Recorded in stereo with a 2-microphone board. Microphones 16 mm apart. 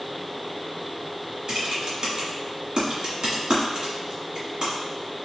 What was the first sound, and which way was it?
Typing on a keyboard, 65° right (ahead or behind).